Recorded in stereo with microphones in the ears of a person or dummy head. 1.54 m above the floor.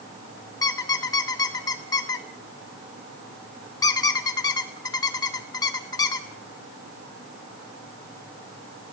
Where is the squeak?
25° left (ahead or behind), 0.9 m.